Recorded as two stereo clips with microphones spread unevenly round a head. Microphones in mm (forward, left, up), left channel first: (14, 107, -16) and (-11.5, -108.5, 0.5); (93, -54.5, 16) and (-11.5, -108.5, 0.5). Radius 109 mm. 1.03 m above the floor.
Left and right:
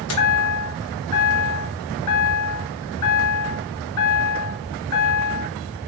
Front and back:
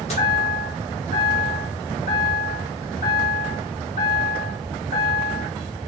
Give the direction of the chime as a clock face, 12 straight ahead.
9 o'clock.